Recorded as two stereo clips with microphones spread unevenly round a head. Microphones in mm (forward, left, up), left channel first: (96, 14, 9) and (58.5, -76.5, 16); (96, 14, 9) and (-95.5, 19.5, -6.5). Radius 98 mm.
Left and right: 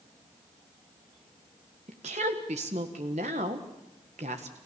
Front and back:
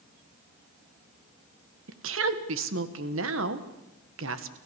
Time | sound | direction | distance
1.9 | a woman speaking | 155° right | 1.5 m